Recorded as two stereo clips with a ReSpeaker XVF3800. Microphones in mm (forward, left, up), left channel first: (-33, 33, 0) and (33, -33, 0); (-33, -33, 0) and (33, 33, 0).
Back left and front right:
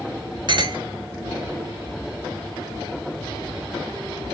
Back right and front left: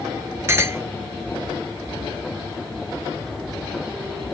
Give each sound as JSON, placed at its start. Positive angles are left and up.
{"t": 0.5, "sound": "a clink", "azimuth_deg": -15, "distance_m": 0.9}